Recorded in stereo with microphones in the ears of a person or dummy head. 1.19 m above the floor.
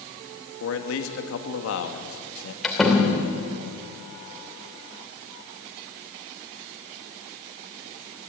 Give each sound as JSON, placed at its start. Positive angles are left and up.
{"t": 0.6, "sound": "a man speaking", "side_deg": 65, "distance_m": 2.0}
{"t": 2.6, "sound": "a door slam", "side_deg": 0, "distance_m": 2.5}